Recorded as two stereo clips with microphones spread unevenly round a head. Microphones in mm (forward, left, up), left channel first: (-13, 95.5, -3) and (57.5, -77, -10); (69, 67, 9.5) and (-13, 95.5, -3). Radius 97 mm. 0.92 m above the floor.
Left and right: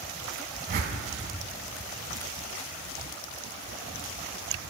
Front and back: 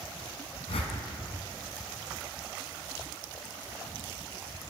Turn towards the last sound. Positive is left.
turn(degrees=-35)